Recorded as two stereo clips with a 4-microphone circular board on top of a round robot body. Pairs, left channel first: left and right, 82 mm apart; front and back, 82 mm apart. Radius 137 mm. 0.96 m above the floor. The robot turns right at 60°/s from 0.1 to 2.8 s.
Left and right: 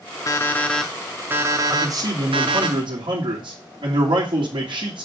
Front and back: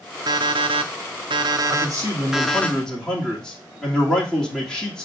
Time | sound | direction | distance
0.3 | an alarm clock | 140° left | 0.7 m
1.7 | a man speaking | 150° right | 2.5 m